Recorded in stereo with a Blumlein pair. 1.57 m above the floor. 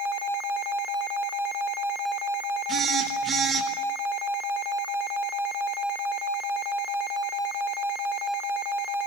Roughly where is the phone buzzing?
Ahead.